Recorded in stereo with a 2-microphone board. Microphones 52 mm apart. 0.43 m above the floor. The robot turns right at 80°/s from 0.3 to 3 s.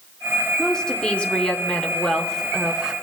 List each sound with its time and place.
0.6 s a woman speaking: 5° left (ahead or behind), 0.9 m; by 2.9 s 10° right (ahead or behind), 0.9 m